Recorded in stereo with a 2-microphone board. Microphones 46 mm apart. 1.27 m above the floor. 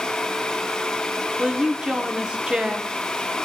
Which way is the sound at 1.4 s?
20° right (ahead or behind).